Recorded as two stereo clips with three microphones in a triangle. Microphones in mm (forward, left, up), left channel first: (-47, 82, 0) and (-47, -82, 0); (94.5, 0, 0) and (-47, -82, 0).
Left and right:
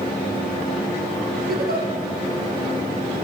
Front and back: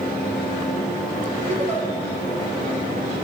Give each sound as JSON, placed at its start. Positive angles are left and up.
{"t": 1.5, "sound": "a giggle", "azimuth_deg": -105, "distance_m": 2.0}